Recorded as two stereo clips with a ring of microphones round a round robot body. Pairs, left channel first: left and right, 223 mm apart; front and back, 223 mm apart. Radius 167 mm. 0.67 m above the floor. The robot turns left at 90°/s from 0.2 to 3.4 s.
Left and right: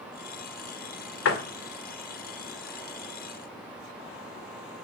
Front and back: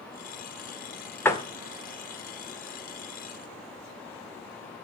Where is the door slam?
80° left, 2 m; by 1.4 s 65° left, 2 m.